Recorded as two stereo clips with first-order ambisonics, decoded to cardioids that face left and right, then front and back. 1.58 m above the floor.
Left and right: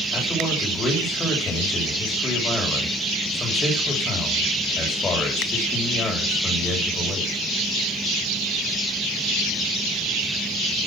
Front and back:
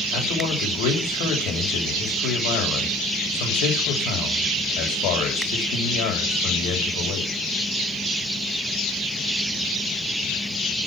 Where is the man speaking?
15° left, 7 m.